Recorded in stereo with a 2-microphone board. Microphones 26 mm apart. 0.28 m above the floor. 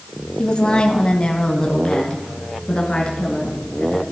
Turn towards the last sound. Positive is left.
turn(degrees=30)  # may be behind; listen again after turning